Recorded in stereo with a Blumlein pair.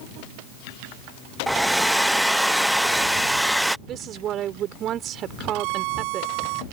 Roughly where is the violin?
Ahead right.